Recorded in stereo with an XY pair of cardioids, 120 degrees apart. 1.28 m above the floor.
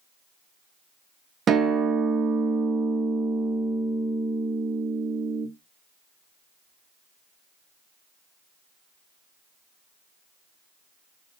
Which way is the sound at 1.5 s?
45° right.